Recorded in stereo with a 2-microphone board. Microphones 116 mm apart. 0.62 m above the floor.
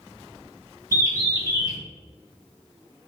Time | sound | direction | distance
0.9 | a bird | 30° right (ahead or behind) | 0.8 m